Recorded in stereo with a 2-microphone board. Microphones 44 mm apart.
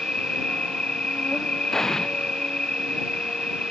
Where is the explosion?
10° left (ahead or behind).